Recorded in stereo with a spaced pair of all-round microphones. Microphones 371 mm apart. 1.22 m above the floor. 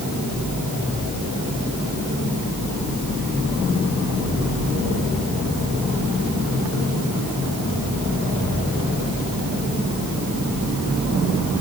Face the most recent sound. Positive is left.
No sound to turn to.